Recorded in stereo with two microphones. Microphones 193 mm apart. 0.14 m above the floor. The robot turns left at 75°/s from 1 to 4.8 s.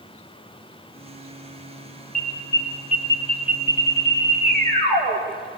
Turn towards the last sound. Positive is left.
turn(degrees=-145)